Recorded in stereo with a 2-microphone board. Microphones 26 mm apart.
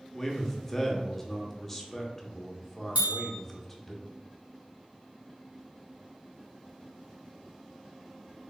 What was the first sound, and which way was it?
A man speaking, 15° left (ahead or behind).